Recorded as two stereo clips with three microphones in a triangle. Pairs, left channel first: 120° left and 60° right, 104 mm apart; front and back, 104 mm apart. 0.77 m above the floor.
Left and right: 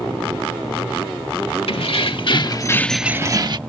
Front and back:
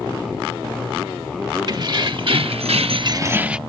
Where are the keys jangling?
140° left; by 3.6 s 100° right.